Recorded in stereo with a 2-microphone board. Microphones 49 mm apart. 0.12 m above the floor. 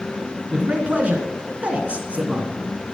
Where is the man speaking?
25° right (ahead or behind), 1.3 m.